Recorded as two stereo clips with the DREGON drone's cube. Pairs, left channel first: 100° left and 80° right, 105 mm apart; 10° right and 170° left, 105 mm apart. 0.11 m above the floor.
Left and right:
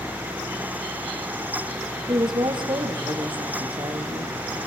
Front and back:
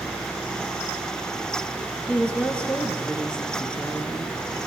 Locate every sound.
2.1 s a woman speaking: 90° right, 1.8 m